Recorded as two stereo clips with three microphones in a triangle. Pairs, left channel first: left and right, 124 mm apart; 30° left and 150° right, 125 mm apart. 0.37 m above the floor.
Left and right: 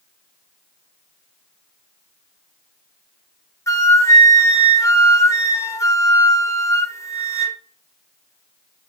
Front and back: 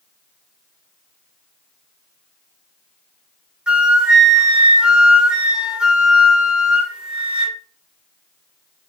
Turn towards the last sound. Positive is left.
turn(degrees=135)